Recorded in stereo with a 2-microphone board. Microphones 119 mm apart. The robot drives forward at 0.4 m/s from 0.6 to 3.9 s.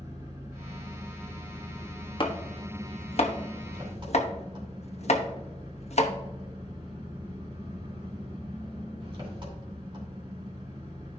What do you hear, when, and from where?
0.0 s an engine running: 30° right (ahead or behind), 4 m; by 11.2 s 45° right (ahead or behind), 3 m
2.2 s chopping: 45° left (ahead or behind), 1.2 m; by 6.1 s 65° left (ahead or behind), 0.9 m